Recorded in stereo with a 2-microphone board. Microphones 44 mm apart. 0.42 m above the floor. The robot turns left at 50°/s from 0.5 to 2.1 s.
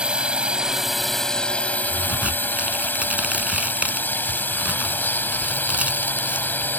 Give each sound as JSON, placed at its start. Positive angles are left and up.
{"t": 0.0, "sound": "a drone", "azimuth_deg": -155}
{"t": 1.9, "sound": "a crack", "side_deg": -45}